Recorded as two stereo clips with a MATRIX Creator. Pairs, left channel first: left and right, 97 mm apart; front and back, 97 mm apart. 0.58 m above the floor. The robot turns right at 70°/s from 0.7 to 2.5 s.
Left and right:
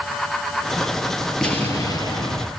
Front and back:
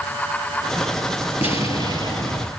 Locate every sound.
1.4 s an explosion: 5° left, 6 m; by 2.5 s 80° left, 6 m